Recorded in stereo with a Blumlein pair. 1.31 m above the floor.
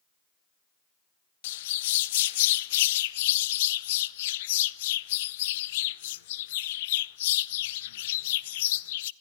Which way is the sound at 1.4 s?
55° left.